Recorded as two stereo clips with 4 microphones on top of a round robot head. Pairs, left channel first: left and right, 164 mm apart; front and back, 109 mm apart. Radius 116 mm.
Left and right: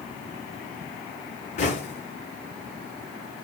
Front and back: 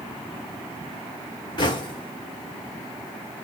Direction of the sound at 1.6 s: 45° left.